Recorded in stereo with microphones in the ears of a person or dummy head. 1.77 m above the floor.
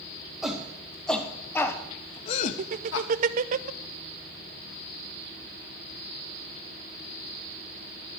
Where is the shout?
Centre (ahead or behind), 2 m; by 3.1 s 65° left (ahead or behind), 0.7 m.